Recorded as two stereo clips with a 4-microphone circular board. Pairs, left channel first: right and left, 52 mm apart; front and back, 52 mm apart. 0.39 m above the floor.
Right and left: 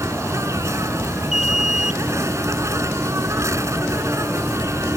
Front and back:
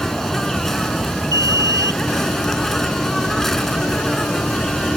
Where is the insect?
80° left.